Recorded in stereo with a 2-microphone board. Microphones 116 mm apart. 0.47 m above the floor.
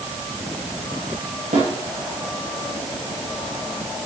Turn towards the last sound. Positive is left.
turn(degrees=-85)